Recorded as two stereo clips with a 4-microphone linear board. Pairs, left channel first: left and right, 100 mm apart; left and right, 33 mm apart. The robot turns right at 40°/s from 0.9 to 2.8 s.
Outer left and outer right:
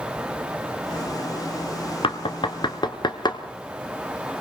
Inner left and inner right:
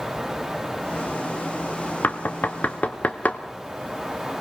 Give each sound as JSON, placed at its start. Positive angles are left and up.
{"t": 2.0, "sound": "knocking", "side_deg": 60, "distance_m": 1.6}